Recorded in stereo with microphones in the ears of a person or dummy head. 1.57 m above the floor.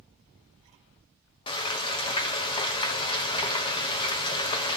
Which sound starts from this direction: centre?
Frying, at 1.5 s.